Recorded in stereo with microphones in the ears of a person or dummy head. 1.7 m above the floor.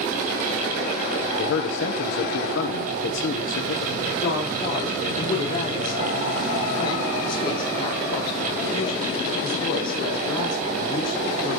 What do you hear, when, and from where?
1.4 s a man speaking: 65° left (ahead or behind), 1.2 m
4.2 s a woman speaking: 35° left (ahead or behind), 5.5 m